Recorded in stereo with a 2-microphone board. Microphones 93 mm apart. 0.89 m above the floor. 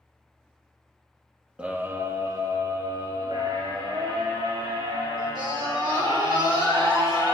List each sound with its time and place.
1.6 s a scream: 10° right (ahead or behind), 1.0 m; by 7.3 s 60° right (ahead or behind), 8 m